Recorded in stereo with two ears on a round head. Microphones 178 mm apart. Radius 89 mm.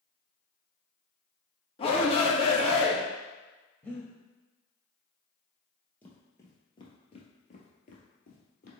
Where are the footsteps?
10° left (ahead or behind), 1.8 m; by 8.7 s 50° left (ahead or behind), 2 m.